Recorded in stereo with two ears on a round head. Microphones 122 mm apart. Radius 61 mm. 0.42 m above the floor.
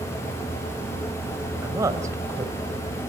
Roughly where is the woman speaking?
Right.